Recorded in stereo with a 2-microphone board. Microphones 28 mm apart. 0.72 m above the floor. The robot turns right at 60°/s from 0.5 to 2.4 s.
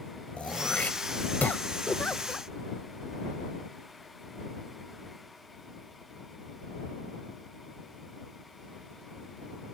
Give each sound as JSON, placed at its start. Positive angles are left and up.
{"t": 0.4, "sound": "throat clearing", "side_deg": 45}
{"t": 1.9, "sound": "a giggle", "azimuth_deg": 120}